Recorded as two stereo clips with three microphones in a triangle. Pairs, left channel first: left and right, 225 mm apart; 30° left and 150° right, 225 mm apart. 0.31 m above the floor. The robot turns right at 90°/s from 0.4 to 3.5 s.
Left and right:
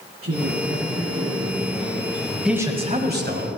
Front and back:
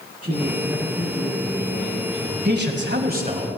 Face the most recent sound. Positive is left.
turn(degrees=-85)